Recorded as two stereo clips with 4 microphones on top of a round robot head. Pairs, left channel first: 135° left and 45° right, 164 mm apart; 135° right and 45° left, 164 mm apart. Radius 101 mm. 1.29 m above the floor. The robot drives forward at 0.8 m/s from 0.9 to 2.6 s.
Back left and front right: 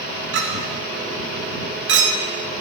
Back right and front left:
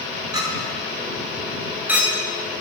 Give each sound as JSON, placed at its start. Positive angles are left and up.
{"t": 0.3, "sound": "a clink", "azimuth_deg": -25, "distance_m": 2.5}